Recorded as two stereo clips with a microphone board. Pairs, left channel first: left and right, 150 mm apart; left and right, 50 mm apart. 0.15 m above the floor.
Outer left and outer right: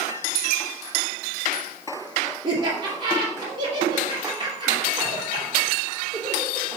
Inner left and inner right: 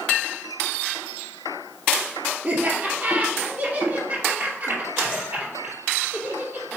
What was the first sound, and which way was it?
Laughter, 30° right (ahead or behind).